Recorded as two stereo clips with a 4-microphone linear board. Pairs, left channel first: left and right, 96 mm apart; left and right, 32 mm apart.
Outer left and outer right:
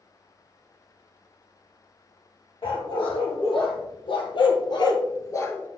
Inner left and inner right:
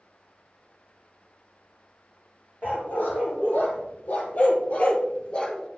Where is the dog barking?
70° left (ahead or behind), 2.5 m; by 5.7 s 20° left (ahead or behind), 0.8 m.